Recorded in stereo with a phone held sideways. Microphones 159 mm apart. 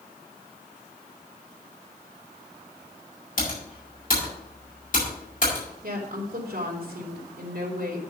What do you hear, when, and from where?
3.4 s typing on a keyboard: 60° left (ahead or behind), 4.5 m
5.8 s a woman speaking: 70° right (ahead or behind), 2.5 m